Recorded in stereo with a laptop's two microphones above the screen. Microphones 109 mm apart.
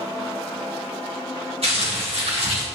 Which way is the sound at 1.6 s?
70° right (ahead or behind).